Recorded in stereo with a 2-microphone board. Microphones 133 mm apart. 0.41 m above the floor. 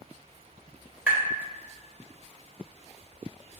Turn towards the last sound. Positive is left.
turn(degrees=-10)  # may be behind; listen again after turning